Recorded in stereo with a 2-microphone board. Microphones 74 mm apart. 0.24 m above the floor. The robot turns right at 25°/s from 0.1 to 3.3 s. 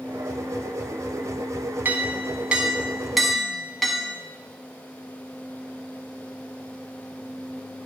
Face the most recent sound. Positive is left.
turn(degrees=0)